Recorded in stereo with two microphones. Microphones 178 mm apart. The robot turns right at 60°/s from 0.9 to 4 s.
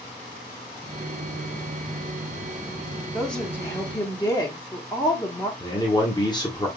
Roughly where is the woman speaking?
Centre.